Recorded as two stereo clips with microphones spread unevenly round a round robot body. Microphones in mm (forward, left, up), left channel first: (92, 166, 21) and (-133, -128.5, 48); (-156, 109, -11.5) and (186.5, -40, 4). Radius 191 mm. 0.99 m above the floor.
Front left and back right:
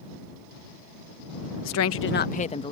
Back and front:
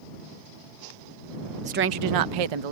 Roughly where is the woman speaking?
Ahead left.